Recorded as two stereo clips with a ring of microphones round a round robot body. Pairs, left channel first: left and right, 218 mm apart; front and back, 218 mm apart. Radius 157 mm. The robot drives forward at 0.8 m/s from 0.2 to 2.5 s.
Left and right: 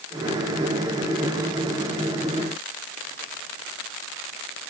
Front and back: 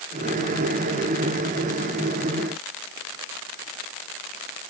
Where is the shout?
I don't hear a shout.